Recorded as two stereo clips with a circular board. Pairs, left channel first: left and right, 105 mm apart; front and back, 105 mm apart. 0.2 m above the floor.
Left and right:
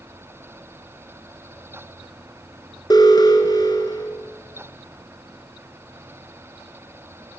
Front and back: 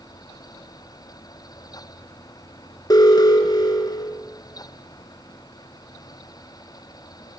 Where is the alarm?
45° left, 3 m.